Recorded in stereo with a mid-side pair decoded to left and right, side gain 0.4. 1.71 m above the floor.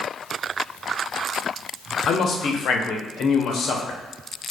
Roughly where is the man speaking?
Ahead left.